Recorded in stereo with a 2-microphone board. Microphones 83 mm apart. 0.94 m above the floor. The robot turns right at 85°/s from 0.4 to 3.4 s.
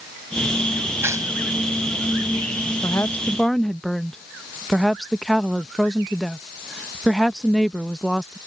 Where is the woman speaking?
125° left; by 8.4 s 175° left.